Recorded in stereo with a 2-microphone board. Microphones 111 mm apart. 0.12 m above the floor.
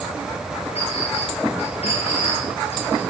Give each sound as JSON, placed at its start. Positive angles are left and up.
{"t": 0.8, "sound": "a clink", "side_deg": 65, "distance_m": 8.0}